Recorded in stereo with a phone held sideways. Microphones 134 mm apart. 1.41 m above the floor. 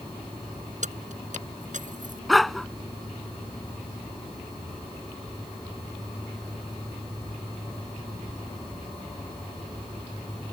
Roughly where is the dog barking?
Centre.